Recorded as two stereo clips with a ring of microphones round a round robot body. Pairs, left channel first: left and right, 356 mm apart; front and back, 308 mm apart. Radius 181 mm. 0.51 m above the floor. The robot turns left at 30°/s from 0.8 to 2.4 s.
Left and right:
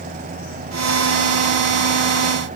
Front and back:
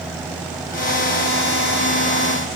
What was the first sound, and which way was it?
Only background noise.